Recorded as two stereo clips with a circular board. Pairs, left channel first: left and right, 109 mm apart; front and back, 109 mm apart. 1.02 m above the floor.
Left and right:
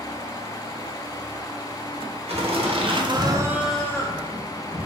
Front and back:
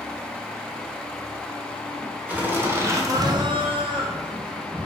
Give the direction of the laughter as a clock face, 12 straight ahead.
4 o'clock.